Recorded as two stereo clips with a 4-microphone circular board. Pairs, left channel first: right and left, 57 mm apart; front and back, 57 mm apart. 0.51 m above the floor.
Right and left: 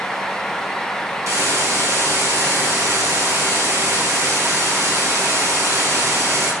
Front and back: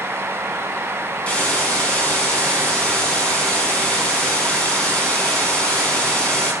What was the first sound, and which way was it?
A hiss, 70° left.